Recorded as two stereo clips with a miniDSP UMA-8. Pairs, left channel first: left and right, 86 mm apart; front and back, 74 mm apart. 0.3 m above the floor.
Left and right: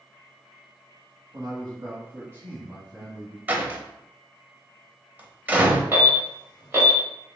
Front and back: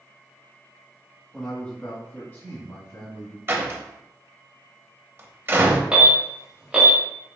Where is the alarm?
125° right, 1.6 m.